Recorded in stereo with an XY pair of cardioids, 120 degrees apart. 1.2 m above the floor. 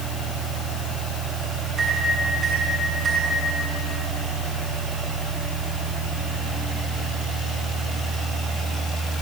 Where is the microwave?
45° right, 8 m.